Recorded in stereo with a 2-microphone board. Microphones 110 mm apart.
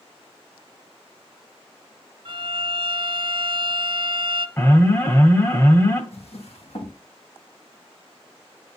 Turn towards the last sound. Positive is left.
turn(degrees=70)  # may be behind; listen again after turning